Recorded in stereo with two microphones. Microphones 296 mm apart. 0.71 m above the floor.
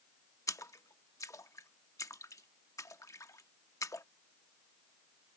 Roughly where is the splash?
Centre.